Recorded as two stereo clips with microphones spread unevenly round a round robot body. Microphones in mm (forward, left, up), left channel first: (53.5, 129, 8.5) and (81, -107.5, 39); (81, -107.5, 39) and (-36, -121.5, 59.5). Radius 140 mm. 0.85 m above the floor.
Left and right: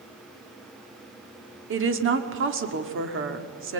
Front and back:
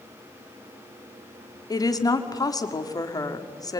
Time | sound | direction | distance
1.7 | a woman speaking | 45° right | 2.5 m